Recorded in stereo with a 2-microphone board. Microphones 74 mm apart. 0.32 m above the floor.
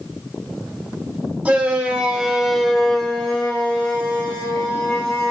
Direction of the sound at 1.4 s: 15° right (ahead or behind).